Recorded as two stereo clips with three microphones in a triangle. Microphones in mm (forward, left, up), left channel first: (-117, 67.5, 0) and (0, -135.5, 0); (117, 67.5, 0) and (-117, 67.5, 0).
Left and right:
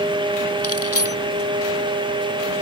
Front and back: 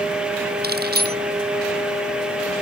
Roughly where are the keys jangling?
Behind left.